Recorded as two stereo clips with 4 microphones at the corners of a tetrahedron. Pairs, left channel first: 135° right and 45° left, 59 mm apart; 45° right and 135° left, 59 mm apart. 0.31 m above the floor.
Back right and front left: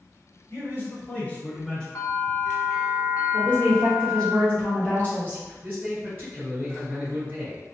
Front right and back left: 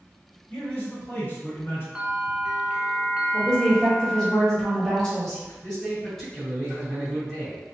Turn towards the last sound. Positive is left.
turn(degrees=30)